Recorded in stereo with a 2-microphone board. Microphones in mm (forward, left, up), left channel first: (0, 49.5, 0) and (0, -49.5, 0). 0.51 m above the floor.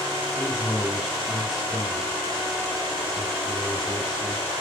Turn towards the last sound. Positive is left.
turn(degrees=0)  # may be behind; listen again after turning